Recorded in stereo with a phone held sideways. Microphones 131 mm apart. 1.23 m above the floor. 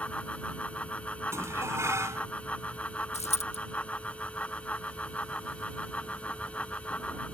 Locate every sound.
0.0 s a fan: 10° left (ahead or behind)
1.3 s dishes clattering: 20° right (ahead or behind)
3.1 s a dropped coin: 55° left (ahead or behind)